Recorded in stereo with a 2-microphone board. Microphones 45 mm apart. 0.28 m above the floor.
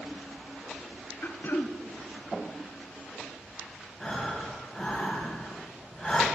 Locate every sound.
1.2 s throat clearing: 50° left (ahead or behind), 0.5 m
4.0 s breathing: 10° left (ahead or behind), 2 m